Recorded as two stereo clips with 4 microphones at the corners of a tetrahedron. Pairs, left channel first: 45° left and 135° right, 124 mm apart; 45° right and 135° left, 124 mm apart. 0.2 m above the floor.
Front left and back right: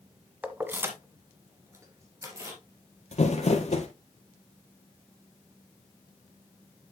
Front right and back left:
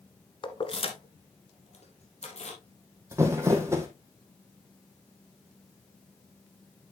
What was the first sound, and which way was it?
Keys jangling, 60° right.